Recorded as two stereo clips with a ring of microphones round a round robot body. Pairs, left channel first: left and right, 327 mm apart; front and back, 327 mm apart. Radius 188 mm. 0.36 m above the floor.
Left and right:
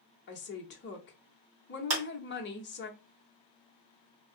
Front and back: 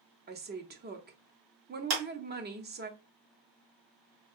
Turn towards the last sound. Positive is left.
turn(degrees=-135)